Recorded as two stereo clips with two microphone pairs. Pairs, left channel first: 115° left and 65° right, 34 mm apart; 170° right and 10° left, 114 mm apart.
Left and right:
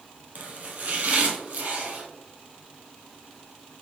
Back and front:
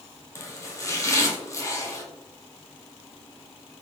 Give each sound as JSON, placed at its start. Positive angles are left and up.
{"t": 0.3, "sound": "chopping", "azimuth_deg": -105, "distance_m": 1.0}